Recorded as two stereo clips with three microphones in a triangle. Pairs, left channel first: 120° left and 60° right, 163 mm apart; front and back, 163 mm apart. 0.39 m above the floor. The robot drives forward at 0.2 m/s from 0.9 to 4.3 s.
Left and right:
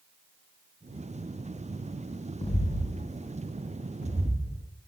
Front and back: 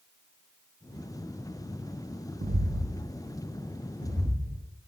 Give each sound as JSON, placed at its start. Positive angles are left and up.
{"t": 2.4, "sound": "footsteps", "azimuth_deg": 170, "distance_m": 0.6}